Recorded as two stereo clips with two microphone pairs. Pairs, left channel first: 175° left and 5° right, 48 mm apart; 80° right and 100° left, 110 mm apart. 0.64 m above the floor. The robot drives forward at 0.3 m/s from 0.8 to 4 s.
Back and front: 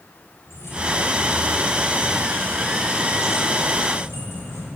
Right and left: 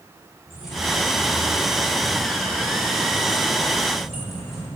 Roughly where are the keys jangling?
Behind.